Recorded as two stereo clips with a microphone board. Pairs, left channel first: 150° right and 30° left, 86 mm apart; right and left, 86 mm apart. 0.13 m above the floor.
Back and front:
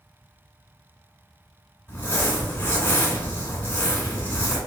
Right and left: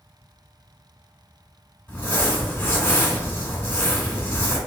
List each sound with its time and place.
1.9 s crumpling: 120° right, 1.7 m